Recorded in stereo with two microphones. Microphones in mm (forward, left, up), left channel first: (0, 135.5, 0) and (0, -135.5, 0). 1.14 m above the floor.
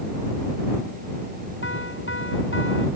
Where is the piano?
50° left (ahead or behind).